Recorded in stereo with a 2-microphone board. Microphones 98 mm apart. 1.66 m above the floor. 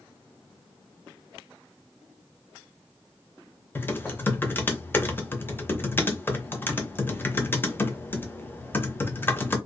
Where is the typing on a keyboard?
20° left (ahead or behind), 0.6 m.